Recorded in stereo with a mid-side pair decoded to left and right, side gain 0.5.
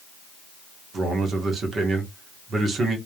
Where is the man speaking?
45° right, 1.6 m.